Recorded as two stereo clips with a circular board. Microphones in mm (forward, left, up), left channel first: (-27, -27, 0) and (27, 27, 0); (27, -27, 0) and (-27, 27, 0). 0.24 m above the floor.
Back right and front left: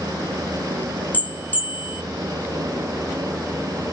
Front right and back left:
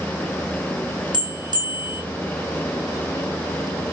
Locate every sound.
1.1 s a bell: 155° left, 2.5 m